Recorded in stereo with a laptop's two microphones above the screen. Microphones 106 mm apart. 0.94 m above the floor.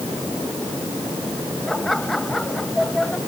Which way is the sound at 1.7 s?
5° left (ahead or behind).